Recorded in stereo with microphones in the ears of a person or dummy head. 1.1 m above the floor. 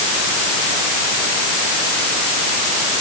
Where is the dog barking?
I don't hear a dog barking.